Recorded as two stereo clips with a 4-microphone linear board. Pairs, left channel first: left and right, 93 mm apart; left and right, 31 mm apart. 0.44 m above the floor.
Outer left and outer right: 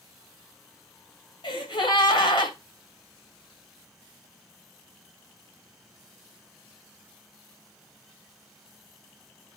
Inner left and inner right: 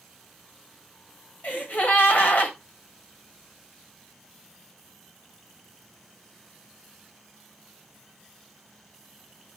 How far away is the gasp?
About 2 m.